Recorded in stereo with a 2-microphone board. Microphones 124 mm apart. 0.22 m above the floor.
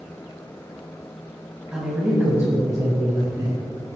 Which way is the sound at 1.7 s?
10° right (ahead or behind).